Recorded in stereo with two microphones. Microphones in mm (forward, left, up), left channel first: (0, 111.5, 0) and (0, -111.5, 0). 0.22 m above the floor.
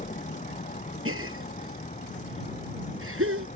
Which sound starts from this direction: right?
A gasp, at 1.1 s.